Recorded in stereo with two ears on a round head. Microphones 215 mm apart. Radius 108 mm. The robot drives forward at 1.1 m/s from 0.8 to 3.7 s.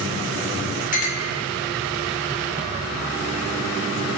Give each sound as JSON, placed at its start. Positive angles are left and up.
{"t": 0.9, "sound": "a clink", "side_deg": 35, "distance_m": 1.0}